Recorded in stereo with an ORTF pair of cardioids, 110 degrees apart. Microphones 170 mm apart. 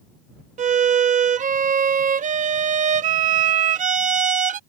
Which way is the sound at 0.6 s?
50° right.